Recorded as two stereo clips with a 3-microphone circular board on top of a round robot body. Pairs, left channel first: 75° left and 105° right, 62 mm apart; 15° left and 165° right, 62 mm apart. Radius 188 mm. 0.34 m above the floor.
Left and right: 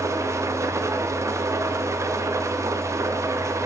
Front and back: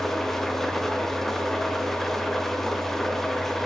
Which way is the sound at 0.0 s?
70° right.